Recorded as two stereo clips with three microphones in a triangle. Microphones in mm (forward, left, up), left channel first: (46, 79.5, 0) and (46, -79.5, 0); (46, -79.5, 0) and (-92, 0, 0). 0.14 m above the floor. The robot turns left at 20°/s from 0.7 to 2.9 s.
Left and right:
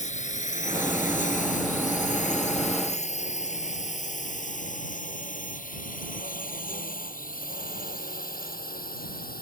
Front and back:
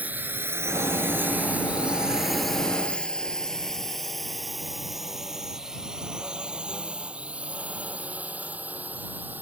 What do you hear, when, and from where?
0.0 s a drone: 75° left; by 9.4 s 70° left